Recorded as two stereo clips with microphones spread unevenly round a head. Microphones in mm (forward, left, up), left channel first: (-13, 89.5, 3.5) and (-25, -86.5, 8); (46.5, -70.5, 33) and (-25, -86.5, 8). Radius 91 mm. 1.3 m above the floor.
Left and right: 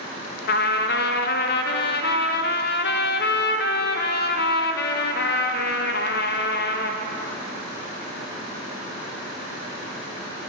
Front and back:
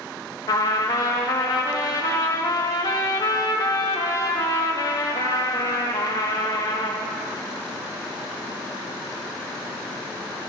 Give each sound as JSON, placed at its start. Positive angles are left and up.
{"t": 0.5, "sound": "a trumpet", "azimuth_deg": 75, "distance_m": 0.7}